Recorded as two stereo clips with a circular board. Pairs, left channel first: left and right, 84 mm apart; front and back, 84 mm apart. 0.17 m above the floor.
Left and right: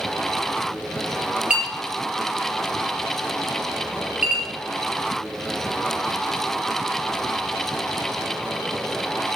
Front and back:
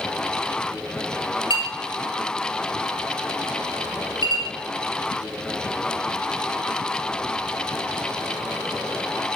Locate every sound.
1.5 s a clink: 15° right, 2 m